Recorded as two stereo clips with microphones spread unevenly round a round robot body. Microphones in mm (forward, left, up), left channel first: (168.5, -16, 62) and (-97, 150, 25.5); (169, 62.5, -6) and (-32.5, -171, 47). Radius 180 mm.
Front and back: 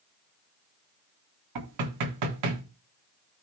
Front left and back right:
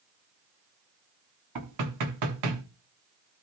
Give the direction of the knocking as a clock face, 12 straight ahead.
6 o'clock.